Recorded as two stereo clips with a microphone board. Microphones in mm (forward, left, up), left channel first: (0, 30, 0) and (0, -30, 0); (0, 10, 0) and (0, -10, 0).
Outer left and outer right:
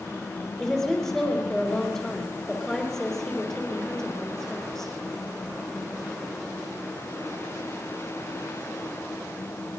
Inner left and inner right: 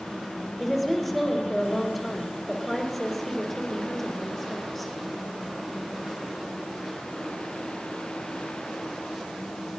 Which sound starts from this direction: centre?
A woman speaking, at 0.6 s.